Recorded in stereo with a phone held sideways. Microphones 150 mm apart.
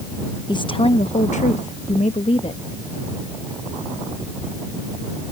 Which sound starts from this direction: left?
A woman speaking, at 0.5 s.